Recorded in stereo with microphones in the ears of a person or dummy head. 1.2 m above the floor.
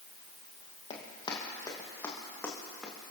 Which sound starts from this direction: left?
Running footsteps, at 0.9 s.